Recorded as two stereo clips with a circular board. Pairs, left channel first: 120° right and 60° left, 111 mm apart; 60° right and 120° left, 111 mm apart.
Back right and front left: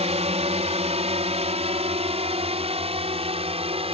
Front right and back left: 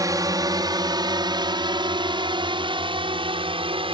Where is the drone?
65° left; by 3.9 s 85° left.